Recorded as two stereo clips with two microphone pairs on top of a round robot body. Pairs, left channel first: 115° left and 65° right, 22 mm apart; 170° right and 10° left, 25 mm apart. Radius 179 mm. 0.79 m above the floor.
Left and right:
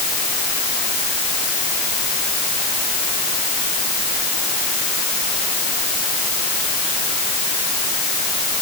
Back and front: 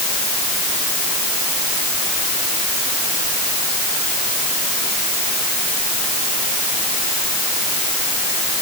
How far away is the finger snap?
I don't hear a finger snap.